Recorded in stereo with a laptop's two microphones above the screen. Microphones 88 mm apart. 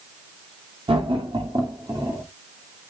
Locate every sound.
0.9 s laughter: 85° right, 2 m; by 2.2 s 35° right (ahead or behind), 2.5 m